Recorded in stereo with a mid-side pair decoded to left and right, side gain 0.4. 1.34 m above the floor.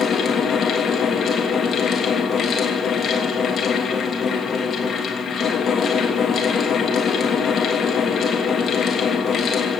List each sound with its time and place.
0.0 s a fan: 55° left, 3 m